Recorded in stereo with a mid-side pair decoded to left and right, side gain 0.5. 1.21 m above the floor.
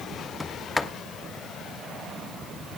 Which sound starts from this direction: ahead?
A sliding door, at 0.4 s.